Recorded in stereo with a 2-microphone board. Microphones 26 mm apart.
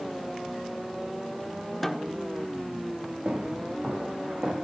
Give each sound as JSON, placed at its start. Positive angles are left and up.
{"t": 1.8, "sound": "a snare drum", "side_deg": 0, "distance_m": 1.3}
{"t": 3.2, "sound": "footsteps", "side_deg": -65, "distance_m": 9.5}